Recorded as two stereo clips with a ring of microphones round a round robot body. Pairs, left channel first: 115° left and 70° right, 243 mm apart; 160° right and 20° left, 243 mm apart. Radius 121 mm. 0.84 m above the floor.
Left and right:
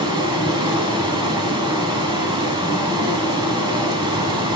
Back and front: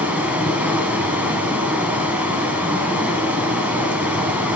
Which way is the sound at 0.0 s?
50° right.